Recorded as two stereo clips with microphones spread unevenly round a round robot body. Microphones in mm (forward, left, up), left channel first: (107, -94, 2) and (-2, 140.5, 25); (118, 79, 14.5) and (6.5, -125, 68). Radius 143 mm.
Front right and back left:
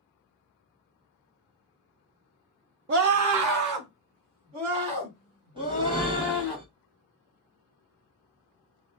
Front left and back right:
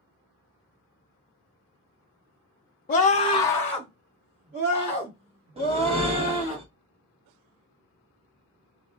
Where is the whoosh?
175° left, 0.7 m.